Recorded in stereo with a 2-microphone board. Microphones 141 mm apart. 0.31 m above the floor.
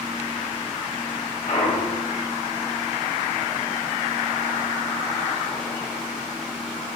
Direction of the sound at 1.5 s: 70° left (ahead or behind).